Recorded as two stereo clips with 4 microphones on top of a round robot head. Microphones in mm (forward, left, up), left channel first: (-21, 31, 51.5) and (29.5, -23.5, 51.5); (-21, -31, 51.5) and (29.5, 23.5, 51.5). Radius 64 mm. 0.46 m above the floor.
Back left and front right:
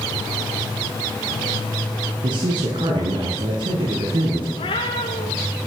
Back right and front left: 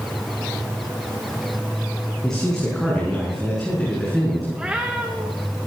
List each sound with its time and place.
2.2 s a man speaking: 50° right, 7 m; by 4.4 s 45° right, 8.5 m
4.5 s a cat meowing: 130° left, 4.5 m